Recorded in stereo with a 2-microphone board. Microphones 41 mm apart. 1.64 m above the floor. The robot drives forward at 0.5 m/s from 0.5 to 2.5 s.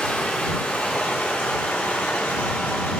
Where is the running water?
50° left (ahead or behind), 2.5 m; by 3.0 s 60° left (ahead or behind), 1.9 m.